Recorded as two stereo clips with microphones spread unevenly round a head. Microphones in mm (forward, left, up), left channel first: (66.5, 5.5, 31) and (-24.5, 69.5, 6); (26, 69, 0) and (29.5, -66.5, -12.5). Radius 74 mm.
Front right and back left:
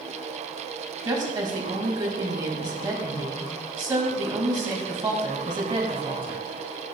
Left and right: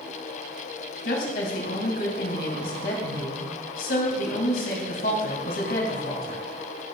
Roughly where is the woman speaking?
Left.